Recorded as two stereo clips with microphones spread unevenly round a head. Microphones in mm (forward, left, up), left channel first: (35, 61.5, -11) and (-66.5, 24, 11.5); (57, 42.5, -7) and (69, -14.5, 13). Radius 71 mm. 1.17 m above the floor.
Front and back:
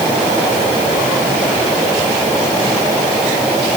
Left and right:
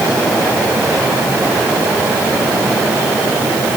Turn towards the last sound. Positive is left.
No sound to turn to.